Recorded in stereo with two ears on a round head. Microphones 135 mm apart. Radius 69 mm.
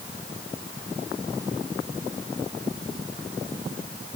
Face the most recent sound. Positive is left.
No sound to turn to.